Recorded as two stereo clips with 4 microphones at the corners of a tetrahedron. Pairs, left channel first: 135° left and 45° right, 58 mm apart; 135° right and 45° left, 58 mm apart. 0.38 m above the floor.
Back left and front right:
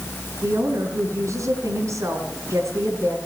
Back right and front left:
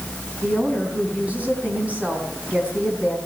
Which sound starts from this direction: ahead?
A woman speaking, at 0.4 s.